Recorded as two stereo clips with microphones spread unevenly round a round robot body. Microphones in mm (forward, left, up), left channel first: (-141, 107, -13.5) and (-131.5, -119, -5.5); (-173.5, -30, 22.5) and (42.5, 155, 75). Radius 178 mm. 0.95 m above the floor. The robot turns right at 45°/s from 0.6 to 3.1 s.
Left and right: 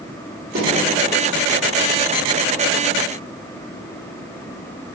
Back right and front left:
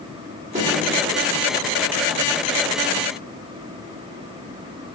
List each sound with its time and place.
0.6 s a snare drum: 30° right, 2.5 m; by 0.7 s 20° right, 2.5 m